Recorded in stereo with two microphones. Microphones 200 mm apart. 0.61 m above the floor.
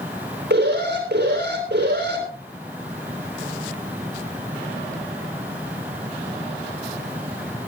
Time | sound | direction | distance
0.5 | an alarm | 55° right (ahead or behind) | 5.5 m